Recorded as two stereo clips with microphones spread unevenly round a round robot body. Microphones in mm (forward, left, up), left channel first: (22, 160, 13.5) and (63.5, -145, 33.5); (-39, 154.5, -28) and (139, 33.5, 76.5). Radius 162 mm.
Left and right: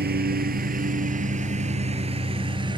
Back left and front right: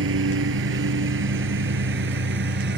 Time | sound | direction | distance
0.0 | a lawn mower | 25° right | ?